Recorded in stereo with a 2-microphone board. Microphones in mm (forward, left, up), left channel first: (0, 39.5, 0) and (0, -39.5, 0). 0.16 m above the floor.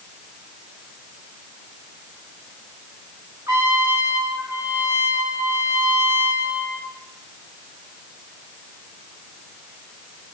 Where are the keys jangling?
No keys jangling in this recording.